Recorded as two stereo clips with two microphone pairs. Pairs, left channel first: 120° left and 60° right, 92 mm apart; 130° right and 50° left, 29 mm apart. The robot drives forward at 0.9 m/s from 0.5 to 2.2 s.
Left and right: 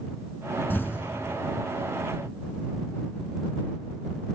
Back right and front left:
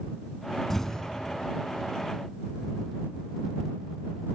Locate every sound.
0.7 s an explosion: 160° left, 1.0 m; by 1.1 s 170° left, 1.3 m